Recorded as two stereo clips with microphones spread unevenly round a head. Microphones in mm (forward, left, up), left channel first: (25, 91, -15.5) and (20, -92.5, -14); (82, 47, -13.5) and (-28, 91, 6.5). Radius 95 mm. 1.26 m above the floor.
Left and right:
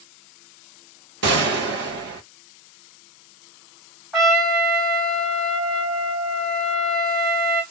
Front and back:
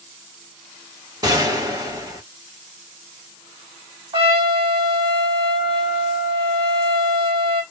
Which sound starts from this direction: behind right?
A gunshot, at 1.2 s.